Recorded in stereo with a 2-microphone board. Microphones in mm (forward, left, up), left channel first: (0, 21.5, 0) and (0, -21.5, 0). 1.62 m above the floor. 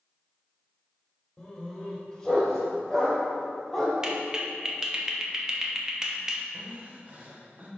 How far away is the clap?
About 0.8 m.